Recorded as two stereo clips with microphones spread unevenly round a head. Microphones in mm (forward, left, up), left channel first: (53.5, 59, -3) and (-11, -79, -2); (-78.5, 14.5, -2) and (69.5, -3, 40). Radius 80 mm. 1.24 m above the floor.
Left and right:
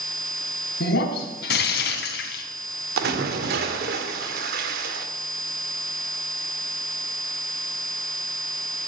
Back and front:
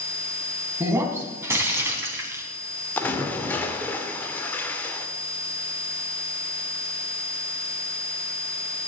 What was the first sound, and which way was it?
Breaking glass, 60° left.